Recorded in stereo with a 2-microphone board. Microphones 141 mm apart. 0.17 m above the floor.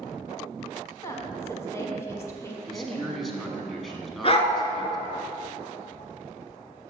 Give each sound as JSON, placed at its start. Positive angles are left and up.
{"t": 1.0, "sound": "a woman speaking", "side_deg": 20, "distance_m": 1.3}
{"t": 2.7, "sound": "a man speaking", "side_deg": 0, "distance_m": 1.1}
{"t": 4.2, "sound": "a dog barking", "side_deg": 45, "distance_m": 0.8}